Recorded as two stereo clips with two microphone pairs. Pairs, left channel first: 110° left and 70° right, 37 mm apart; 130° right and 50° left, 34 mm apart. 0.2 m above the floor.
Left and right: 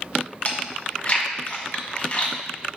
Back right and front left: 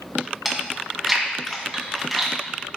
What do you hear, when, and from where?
0.5 s chewing: 135° left, 1.9 m